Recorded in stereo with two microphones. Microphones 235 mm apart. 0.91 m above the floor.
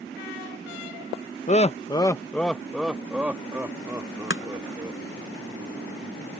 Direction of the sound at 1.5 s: 30° left (ahead or behind).